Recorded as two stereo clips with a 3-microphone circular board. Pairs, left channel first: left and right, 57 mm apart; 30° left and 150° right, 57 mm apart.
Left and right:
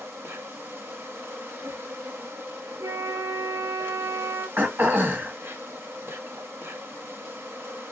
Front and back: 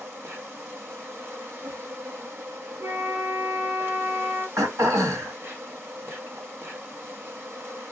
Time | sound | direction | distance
0.0 | an insect | 115° right | 1.3 m
2.8 | a flute | 105° right | 2.0 m
4.6 | throat clearing | 135° right | 1.7 m